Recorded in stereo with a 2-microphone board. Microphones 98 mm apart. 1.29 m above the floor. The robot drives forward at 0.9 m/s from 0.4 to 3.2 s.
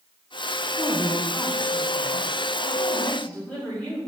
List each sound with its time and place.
0.8 s a woman speaking: 55° left (ahead or behind), 1.1 m; by 4.0 s 20° left (ahead or behind), 3 m